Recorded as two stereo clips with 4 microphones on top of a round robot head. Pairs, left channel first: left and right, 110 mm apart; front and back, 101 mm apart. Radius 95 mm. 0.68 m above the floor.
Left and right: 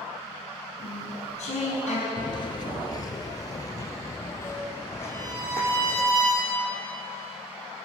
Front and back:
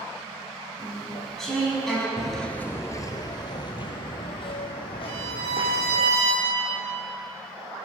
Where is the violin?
155° right, 5 m.